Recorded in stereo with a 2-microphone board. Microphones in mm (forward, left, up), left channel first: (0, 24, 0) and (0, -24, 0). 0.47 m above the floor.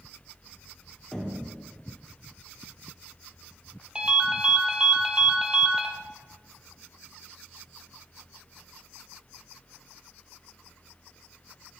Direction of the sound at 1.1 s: 10° left (ahead or behind).